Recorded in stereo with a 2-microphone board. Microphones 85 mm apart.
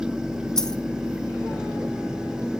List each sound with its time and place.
0.6 s a dropped coin: 5° left (ahead or behind), 1.4 m